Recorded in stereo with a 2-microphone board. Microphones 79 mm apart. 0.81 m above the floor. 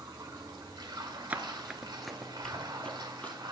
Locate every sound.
0.0 s running water: 65° right (ahead or behind), 1.7 m
1.3 s running footsteps: 20° right (ahead or behind), 0.8 m; by 3.4 s 20° left (ahead or behind), 1.8 m